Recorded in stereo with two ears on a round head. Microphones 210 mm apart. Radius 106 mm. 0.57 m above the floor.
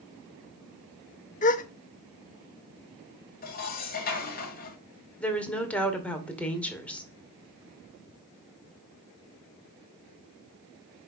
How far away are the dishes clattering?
About 2 m.